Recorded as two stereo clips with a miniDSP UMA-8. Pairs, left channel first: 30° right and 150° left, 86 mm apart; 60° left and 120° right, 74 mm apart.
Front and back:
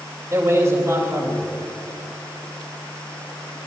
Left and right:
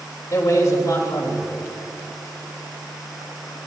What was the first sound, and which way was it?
A man speaking, 95° left.